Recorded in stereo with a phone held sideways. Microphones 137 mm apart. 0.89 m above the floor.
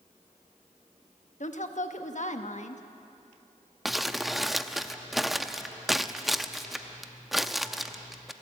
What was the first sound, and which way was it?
A woman speaking, 60° left (ahead or behind).